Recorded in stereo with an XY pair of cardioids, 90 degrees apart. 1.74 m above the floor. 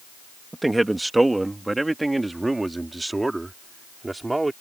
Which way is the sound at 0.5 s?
10° right.